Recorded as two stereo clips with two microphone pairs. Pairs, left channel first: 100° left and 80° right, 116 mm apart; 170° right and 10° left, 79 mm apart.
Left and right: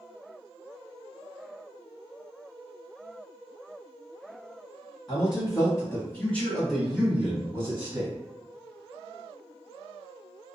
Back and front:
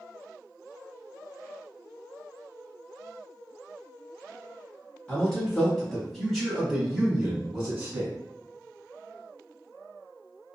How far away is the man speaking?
About 1.4 m.